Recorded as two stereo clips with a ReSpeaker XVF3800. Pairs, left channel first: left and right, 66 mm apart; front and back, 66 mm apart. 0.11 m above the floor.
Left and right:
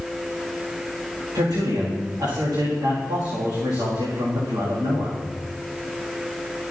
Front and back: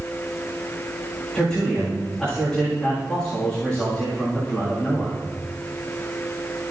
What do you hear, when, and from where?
1.3 s a man speaking: 80° right, 8 m